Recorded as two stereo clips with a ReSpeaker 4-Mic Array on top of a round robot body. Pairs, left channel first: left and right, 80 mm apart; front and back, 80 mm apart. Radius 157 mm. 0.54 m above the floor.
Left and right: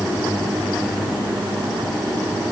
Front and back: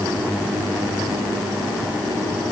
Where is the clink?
I don't hear a clink.